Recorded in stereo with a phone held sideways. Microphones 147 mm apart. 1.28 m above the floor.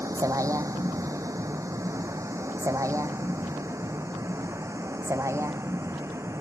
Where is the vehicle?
20° right (ahead or behind).